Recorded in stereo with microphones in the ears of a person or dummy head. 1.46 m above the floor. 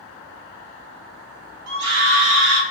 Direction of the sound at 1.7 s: 60° right (ahead or behind).